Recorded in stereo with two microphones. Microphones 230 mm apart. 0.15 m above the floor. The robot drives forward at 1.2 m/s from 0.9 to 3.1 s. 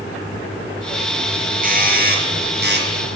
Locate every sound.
1.6 s a doorbell: 40° right (ahead or behind), 3.5 m; by 2.9 s 50° right (ahead or behind), 3 m